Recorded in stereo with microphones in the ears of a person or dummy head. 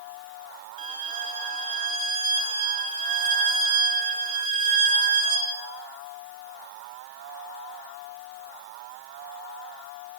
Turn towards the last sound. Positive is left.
turn(degrees=-40)  # may be behind; listen again after turning